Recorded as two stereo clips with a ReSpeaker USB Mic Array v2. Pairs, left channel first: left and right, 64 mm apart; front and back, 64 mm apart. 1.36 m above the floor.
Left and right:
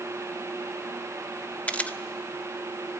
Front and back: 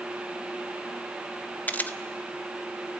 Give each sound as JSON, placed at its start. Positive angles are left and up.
{"t": 1.7, "sound": "a camera shutter", "azimuth_deg": 40, "distance_m": 0.7}